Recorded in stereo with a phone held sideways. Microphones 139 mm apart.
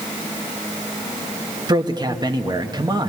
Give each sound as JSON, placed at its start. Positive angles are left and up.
{"t": 1.7, "sound": "a man speaking", "side_deg": -30, "distance_m": 1.6}